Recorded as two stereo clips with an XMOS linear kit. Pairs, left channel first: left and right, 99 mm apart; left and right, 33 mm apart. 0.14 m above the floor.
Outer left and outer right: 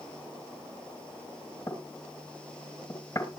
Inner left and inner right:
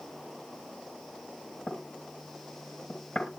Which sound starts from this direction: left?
Knocking, at 1.7 s.